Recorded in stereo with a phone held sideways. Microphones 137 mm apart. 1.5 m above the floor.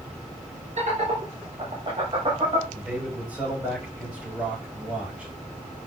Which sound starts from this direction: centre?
A man speaking, at 2.7 s.